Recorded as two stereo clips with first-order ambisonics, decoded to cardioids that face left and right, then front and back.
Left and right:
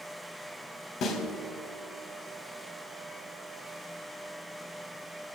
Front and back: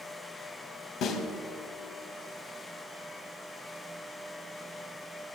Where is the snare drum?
40° left, 1.3 m.